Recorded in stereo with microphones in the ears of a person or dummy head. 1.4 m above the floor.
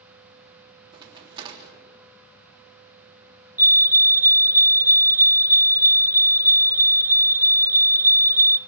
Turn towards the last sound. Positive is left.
turn(degrees=-10)  # may be behind; listen again after turning